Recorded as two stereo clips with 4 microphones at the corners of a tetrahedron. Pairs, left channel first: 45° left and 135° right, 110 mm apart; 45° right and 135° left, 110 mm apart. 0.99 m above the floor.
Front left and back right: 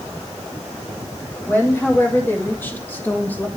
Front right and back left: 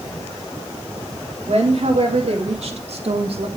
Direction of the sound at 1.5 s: 115° left.